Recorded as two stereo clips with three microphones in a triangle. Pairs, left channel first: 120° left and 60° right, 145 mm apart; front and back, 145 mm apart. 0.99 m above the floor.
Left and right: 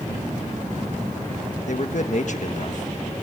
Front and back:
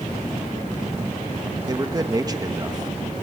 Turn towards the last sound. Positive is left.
turn(degrees=120)